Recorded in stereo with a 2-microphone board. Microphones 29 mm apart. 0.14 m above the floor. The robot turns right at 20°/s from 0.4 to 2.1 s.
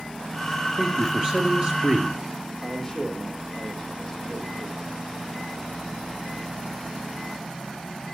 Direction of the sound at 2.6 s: 15° left (ahead or behind).